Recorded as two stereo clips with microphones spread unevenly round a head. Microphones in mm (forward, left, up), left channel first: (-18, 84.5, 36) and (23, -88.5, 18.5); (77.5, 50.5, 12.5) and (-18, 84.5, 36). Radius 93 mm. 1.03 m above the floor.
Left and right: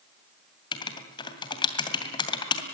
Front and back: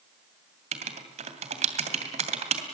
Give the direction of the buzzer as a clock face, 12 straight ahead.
No buzzer in this recording.